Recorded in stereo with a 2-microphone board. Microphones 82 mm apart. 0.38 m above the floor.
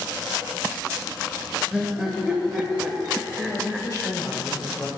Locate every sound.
1.7 s laughter: 10° right (ahead or behind), 1.6 m
3.4 s a woman speaking: 40° left (ahead or behind), 1.6 m